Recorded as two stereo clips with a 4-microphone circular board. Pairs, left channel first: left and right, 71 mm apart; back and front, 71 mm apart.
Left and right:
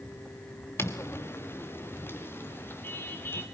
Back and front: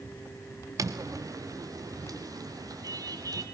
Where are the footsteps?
40° left, 1.7 m; by 3.5 s 30° left, 4 m.